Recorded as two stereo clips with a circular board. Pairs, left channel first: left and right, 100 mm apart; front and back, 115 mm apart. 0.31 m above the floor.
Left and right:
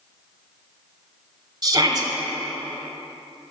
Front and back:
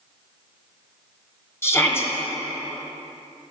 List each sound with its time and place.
1.6 s a shout: 60° right, 1.3 m